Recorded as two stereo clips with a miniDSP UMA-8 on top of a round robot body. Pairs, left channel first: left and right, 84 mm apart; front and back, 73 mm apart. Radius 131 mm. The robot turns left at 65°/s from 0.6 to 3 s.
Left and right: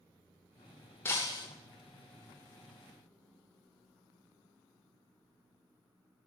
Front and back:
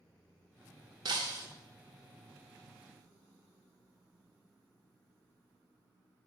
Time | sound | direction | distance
1.1 | breaking glass | 155° left | 0.6 m